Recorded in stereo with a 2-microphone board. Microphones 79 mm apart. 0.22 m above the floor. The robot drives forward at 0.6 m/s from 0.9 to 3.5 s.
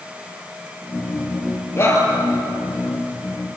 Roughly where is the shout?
Left.